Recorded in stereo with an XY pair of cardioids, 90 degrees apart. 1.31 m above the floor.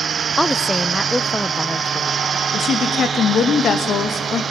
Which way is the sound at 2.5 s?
65° left.